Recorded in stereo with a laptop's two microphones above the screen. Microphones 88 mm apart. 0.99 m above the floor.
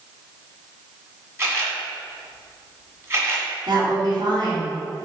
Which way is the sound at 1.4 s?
30° right (ahead or behind).